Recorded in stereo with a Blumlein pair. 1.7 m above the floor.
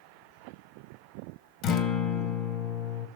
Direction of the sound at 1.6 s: 35° left.